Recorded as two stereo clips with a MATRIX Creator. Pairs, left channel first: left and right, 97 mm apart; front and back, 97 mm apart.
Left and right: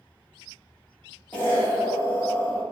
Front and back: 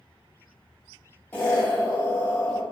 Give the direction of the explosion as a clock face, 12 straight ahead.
11 o'clock.